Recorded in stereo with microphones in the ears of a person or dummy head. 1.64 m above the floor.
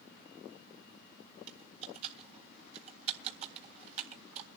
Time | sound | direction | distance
1.5 | typing on a keyboard | 35° right (ahead or behind) | 1.7 m